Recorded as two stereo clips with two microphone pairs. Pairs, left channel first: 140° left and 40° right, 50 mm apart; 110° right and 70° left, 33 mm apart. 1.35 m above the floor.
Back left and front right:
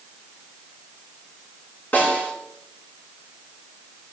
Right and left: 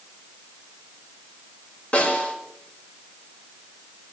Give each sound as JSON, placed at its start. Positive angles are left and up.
{"t": 1.9, "sound": "a snare drum", "azimuth_deg": -170, "distance_m": 4.5}